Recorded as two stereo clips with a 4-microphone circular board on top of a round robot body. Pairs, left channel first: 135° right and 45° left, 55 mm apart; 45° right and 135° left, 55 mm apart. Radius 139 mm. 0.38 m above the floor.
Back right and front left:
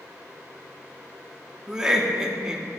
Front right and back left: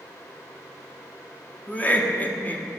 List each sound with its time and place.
1.7 s laughter: 25° right, 0.8 m